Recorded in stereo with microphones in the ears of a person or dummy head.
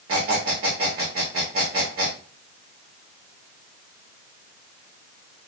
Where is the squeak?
25° right (ahead or behind), 1.2 m.